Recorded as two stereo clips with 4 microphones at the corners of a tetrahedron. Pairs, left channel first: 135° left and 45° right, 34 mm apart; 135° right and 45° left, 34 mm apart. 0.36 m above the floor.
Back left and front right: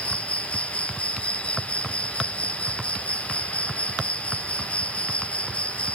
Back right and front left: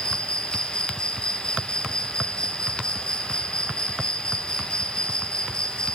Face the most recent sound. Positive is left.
turn(degrees=175)